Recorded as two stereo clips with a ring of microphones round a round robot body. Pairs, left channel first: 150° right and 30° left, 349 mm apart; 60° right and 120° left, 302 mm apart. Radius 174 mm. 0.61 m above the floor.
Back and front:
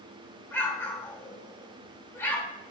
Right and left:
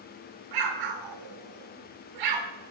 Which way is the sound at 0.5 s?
125° left.